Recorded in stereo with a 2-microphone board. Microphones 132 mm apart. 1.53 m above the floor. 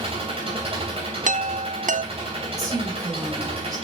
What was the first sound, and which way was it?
An engine running, 45° right (ahead or behind).